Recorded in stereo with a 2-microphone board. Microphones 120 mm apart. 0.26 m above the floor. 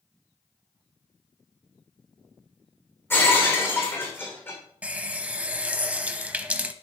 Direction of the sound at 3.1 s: 20° left (ahead or behind).